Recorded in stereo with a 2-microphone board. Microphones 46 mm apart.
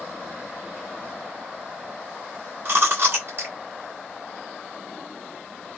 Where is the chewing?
50° right (ahead or behind), 1.7 m.